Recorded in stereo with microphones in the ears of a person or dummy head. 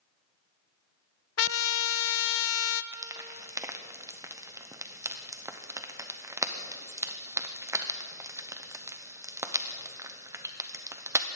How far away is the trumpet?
About 0.6 m.